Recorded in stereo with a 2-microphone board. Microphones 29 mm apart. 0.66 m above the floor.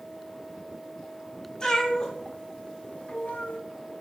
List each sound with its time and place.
1.6 s a cat meowing: 30° left (ahead or behind), 1.3 m; by 3.6 s 70° left (ahead or behind), 0.6 m